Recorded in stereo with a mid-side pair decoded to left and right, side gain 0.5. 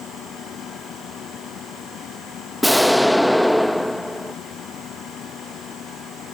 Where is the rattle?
No rattle in this recording.